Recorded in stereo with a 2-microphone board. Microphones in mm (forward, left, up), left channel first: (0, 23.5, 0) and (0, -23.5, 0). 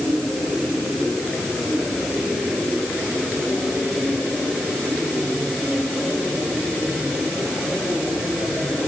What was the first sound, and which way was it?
Only background noise.